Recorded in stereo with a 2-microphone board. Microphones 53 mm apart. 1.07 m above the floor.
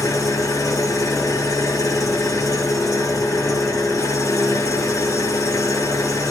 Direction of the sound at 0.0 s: 80° left.